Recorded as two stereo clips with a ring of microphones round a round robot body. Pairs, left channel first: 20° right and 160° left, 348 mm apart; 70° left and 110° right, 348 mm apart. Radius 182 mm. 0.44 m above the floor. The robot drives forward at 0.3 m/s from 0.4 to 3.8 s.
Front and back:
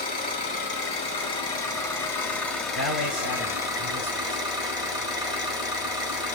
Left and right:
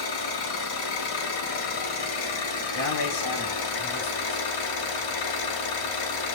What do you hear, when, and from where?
0.0 s an engine running: 45° left, 1.9 m; by 6.3 s 80° left, 1.5 m
2.8 s a man speaking: 110° left, 2.5 m; by 4.5 s 115° left, 2.5 m